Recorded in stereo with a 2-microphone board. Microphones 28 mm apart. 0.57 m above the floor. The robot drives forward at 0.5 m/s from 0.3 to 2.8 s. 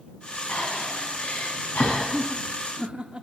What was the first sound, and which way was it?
Breathing, 75° left (ahead or behind).